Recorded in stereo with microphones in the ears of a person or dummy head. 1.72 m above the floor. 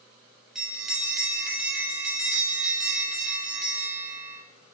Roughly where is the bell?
Centre.